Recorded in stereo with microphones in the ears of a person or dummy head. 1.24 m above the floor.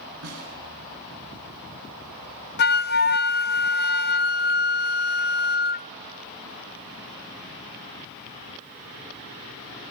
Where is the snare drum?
85° right, 10 m.